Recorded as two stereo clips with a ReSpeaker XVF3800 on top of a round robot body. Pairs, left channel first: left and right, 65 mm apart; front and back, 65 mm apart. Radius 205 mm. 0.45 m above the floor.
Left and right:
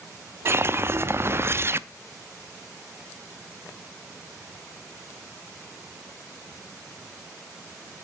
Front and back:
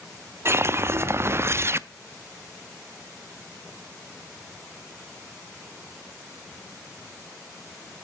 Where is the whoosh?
135° right, 0.6 m.